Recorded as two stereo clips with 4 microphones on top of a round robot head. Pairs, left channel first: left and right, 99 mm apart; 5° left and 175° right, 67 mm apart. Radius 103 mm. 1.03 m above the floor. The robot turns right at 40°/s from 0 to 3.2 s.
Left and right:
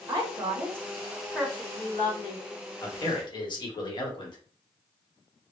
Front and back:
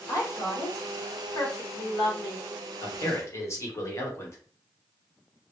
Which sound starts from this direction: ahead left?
A man speaking, at 2.8 s.